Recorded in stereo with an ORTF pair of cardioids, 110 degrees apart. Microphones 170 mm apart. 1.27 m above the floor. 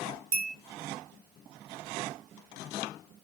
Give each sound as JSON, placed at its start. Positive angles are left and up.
{"t": 0.3, "sound": "a bell", "azimuth_deg": -55, "distance_m": 0.6}